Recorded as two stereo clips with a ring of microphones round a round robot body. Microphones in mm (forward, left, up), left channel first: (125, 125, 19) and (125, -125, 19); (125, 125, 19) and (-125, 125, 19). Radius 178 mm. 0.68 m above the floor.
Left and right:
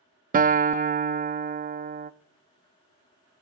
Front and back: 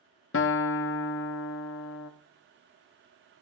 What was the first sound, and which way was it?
A guitar, 35° right.